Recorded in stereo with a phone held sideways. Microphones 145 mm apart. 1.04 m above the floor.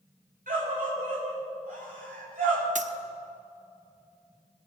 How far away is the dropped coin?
About 0.7 m.